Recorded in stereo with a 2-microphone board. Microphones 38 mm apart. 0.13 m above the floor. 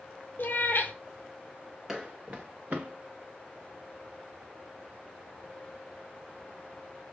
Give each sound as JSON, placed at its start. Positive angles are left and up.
{"t": 0.4, "sound": "a cat meowing", "side_deg": 65, "distance_m": 0.7}
{"t": 1.9, "sound": "footsteps", "side_deg": -20, "distance_m": 0.5}